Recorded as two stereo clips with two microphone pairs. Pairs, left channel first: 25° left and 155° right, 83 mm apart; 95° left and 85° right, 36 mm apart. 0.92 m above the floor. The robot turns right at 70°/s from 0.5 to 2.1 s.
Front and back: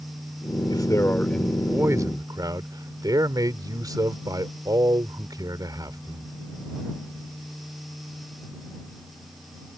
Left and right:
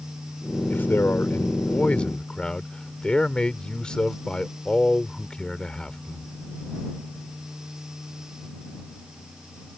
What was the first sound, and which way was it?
A man speaking, 65° left.